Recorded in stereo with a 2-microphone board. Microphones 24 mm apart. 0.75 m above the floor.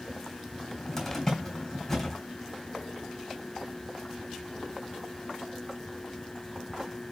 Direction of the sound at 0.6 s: 20° left (ahead or behind).